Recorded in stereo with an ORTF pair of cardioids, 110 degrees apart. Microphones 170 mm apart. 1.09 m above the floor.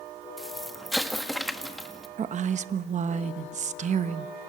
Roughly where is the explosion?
Ahead.